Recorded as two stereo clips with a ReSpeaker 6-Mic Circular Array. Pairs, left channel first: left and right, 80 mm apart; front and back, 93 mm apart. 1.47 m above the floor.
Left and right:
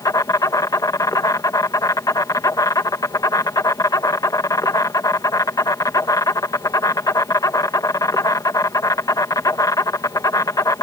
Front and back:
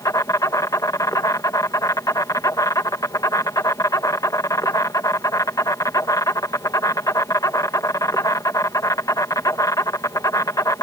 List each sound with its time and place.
0.0 s an insect: 50° left